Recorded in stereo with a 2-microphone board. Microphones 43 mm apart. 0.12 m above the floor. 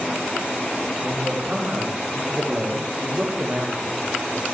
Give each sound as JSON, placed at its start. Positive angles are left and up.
{"t": 1.0, "sound": "a man speaking", "side_deg": -30, "distance_m": 9.5}